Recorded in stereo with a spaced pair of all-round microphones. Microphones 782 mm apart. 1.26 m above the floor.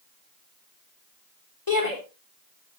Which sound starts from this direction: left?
A shout, at 1.7 s.